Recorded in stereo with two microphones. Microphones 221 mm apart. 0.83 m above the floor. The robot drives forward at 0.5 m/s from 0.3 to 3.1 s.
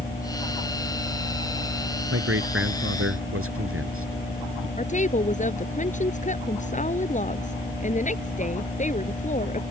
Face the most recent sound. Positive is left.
turn(degrees=35)  # may be behind; listen again after turning